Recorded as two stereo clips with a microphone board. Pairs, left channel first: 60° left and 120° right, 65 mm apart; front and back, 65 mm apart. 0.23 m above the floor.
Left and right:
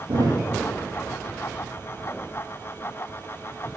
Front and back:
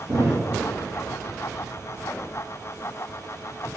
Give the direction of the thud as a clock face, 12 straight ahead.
4 o'clock.